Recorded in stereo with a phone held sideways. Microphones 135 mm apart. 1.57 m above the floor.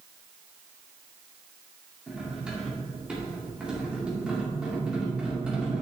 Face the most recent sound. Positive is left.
turn(degrees=-10)  # may be behind; listen again after turning